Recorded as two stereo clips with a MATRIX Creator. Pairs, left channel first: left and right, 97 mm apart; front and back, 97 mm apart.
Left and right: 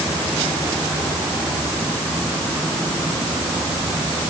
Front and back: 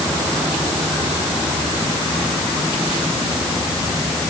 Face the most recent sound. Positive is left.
No sound to turn to.